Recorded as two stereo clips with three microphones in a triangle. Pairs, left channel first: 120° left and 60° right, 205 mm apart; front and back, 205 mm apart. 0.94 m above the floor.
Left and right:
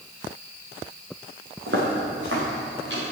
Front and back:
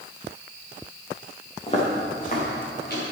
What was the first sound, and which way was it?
Footsteps, 60° right.